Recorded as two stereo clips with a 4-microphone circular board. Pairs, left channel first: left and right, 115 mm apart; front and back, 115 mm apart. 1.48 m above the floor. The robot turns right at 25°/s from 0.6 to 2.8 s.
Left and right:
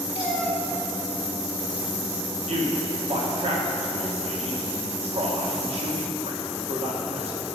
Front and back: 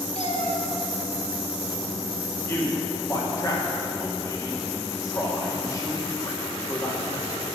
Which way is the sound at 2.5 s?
70° right.